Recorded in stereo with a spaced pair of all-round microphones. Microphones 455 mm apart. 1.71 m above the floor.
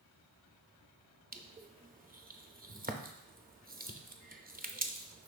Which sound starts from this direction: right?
Crushing, at 1.3 s.